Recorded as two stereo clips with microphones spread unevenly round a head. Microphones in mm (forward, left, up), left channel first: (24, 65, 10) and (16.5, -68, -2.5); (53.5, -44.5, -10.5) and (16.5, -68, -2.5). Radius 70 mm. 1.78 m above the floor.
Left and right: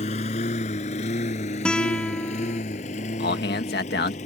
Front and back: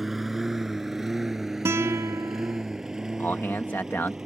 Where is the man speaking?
105° left.